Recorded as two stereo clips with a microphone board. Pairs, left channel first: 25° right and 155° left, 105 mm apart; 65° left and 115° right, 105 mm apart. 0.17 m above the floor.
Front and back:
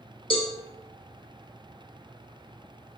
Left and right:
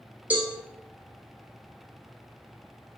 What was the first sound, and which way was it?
A cowbell, 40° right.